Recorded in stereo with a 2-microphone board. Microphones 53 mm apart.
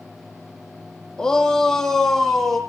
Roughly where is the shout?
Centre.